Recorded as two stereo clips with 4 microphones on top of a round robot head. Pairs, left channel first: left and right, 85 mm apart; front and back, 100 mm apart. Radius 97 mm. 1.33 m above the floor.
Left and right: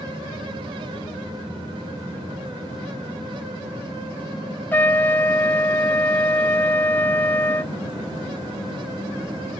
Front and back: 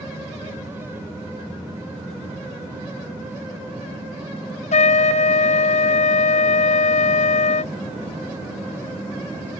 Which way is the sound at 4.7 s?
15° left.